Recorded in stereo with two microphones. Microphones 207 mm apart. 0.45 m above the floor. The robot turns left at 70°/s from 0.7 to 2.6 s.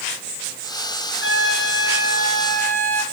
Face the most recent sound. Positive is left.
turn(degrees=10)